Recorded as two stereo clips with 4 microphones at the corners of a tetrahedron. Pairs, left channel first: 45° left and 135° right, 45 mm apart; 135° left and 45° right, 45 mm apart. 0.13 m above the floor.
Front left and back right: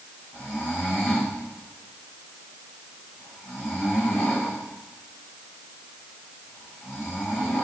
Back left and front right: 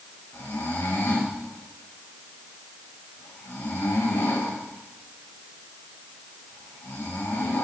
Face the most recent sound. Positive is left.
turn(degrees=120)